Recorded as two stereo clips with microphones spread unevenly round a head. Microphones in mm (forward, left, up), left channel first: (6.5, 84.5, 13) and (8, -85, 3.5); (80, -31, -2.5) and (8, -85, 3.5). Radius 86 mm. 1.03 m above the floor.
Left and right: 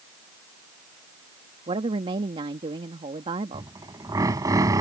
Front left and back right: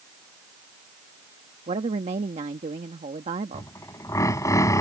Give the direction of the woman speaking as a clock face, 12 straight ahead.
5 o'clock.